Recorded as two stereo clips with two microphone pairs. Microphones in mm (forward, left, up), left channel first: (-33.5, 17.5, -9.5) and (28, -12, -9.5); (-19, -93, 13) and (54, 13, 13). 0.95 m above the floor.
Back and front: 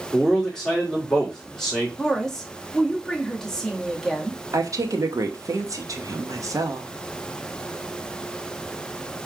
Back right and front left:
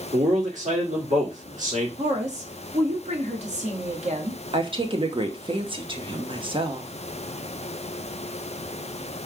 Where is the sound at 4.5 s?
5° left, 0.9 m.